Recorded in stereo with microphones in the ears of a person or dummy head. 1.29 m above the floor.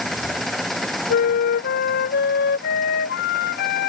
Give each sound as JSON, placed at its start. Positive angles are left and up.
{"t": 0.0, "sound": "an engine running", "side_deg": -5}
{"t": 1.1, "sound": "a flute", "side_deg": 65}